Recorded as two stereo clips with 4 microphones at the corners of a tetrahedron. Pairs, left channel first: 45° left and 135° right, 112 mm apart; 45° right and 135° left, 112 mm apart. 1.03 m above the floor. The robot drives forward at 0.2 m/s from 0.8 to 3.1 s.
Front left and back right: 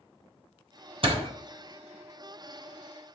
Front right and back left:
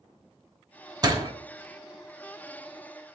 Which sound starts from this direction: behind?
A door slam, at 1.0 s.